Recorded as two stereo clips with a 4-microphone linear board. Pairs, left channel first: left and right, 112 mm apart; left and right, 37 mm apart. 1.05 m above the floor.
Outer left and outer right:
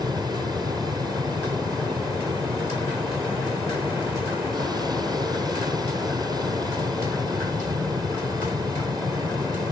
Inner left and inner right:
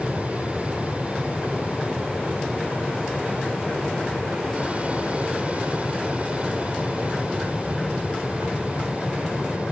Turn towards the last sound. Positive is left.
turn(degrees=-35)  # may be behind; listen again after turning